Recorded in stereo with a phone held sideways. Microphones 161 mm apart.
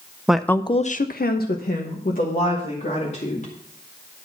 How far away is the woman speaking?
About 0.6 m.